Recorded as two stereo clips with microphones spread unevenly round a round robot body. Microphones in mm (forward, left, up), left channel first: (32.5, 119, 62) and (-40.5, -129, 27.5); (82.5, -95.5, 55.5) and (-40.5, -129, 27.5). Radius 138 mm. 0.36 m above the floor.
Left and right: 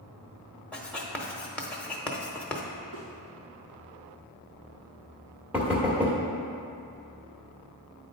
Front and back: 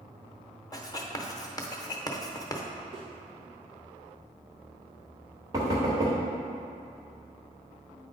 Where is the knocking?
Straight behind, 1.3 m.